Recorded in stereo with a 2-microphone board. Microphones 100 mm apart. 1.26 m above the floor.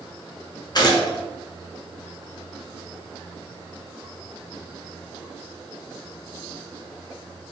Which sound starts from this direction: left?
A gunshot, at 0.8 s.